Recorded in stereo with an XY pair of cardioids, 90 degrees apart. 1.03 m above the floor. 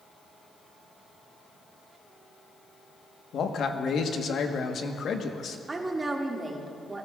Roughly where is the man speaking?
Ahead left.